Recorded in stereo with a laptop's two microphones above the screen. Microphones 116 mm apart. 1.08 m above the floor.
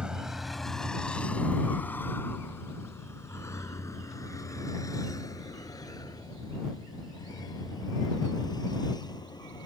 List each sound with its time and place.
0.0 s a vehicle: 10° right (ahead or behind); by 9.7 s 35° left (ahead or behind)